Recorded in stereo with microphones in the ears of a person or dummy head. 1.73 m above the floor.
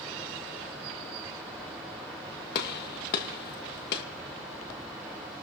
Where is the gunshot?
55° left (ahead or behind), 1.7 m.